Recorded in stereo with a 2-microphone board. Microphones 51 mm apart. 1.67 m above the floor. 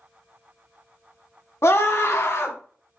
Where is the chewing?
I don't hear chewing.